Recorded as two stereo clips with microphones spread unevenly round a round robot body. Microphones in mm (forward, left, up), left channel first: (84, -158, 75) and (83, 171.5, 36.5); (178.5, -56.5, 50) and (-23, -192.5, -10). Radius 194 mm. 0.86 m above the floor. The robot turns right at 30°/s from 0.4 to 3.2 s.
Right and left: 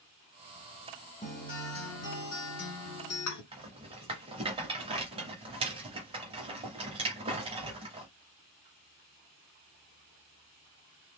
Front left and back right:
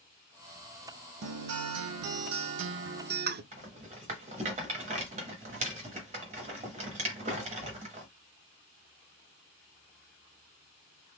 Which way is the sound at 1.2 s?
150° right.